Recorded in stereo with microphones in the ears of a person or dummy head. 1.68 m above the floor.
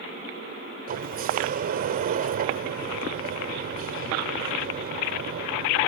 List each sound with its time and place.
0.9 s a sliding door: 40° right (ahead or behind)